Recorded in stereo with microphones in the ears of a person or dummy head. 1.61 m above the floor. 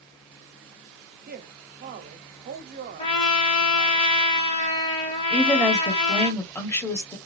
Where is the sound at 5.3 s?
10° left (ahead or behind), 1.1 m.